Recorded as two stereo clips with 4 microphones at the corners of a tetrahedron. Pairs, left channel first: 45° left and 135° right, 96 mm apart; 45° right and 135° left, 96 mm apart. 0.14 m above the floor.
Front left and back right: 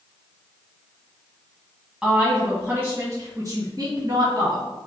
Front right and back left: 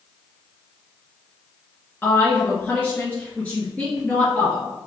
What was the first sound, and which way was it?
A woman speaking, 60° right.